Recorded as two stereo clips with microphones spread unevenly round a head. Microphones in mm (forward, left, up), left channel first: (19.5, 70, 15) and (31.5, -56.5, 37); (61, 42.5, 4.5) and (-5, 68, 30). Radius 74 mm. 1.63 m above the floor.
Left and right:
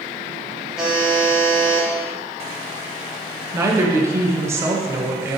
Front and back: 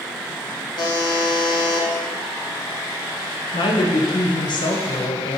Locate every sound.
0.8 s a buzzer: straight ahead, 1.4 m
3.5 s a woman speaking: 15° right, 1.1 m